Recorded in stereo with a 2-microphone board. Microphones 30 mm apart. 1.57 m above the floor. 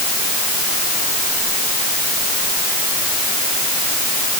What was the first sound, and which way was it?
Only background noise.